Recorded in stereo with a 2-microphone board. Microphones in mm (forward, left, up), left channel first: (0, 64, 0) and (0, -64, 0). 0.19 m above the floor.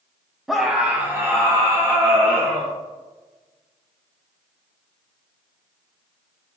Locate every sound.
0.5 s a scream: centre (ahead or behind), 1.1 m; by 2.7 s 25° right (ahead or behind), 2.5 m